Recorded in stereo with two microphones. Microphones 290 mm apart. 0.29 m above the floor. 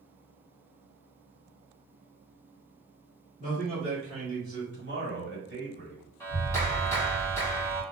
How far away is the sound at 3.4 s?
About 1.9 m.